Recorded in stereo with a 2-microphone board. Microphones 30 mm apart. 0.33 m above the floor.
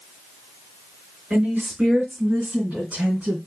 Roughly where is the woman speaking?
Right.